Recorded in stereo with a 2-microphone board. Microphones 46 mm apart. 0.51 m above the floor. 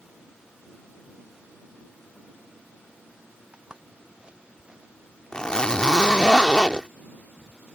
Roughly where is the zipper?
Centre.